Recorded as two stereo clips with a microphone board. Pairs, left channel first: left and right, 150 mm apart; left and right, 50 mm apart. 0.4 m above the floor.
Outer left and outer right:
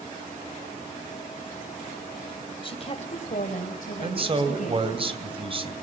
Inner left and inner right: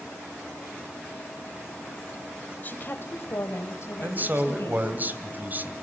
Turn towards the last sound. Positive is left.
turn(degrees=-40)  # may be behind; listen again after turning